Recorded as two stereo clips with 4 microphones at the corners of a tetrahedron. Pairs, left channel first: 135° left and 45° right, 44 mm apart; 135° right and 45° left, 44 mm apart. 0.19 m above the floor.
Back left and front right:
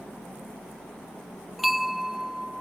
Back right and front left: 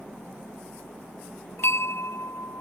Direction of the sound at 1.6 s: 130° right.